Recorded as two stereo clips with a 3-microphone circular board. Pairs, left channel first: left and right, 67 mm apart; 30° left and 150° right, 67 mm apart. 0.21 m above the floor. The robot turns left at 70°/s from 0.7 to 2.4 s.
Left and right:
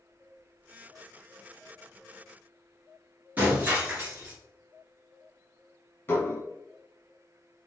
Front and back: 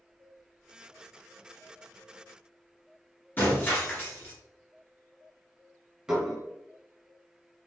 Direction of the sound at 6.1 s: 130° left.